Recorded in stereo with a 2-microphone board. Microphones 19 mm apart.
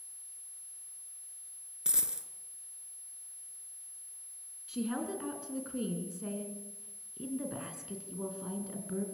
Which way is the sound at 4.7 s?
20° right (ahead or behind).